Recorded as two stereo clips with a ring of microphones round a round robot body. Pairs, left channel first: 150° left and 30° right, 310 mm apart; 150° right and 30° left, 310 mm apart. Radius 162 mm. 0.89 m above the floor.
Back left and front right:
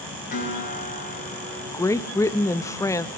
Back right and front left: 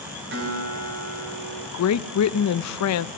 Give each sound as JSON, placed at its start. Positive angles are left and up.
{"t": 0.3, "sound": "a guitar", "azimuth_deg": 85, "distance_m": 6.0}
{"t": 1.7, "sound": "a woman speaking", "azimuth_deg": -130, "distance_m": 0.8}